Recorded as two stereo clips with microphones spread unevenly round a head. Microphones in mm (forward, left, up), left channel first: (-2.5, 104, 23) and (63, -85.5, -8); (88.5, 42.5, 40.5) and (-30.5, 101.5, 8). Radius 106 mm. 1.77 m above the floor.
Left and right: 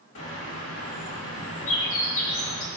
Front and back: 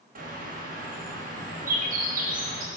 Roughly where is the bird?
Behind left.